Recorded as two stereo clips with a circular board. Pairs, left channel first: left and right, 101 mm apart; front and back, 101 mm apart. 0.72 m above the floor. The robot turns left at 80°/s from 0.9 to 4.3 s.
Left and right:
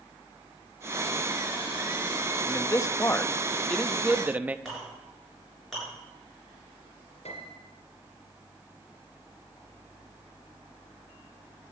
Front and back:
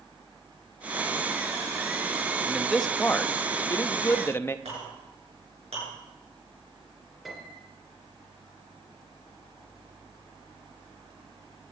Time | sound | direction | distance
2.5 | a man speaking | 110° left | 0.6 m
4.7 | a clink | straight behind | 7.5 m
7.2 | a piano | 90° left | 3 m